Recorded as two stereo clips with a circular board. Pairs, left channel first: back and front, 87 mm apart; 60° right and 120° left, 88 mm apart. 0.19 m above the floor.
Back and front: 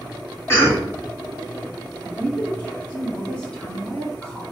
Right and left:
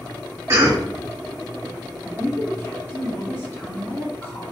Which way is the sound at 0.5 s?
145° left.